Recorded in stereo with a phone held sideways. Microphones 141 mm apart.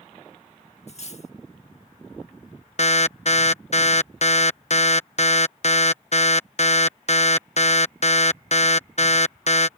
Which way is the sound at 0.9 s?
50° left (ahead or behind).